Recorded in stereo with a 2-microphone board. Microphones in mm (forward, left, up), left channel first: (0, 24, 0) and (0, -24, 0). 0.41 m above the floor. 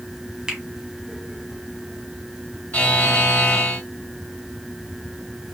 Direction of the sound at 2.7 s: 35° left (ahead or behind).